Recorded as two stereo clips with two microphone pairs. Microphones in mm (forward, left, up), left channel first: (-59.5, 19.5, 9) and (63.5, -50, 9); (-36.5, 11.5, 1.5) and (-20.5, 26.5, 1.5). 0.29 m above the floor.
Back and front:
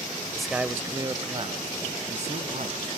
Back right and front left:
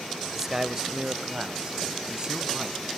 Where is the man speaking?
70° left, 0.9 m; by 2.9 s 10° right, 2 m.